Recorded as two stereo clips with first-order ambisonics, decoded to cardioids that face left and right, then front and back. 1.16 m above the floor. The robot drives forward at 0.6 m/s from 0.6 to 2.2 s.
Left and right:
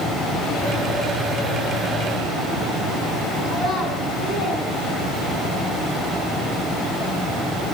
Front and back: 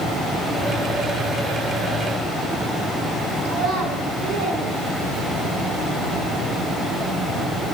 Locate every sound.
3.5 s a child speaking: 165° left, 2.5 m